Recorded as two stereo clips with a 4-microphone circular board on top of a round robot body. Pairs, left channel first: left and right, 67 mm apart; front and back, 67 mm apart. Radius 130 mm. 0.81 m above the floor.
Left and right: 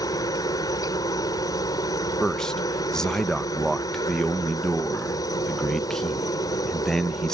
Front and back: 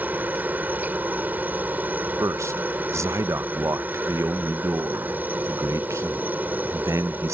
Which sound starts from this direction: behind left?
A helicopter, at 0.0 s.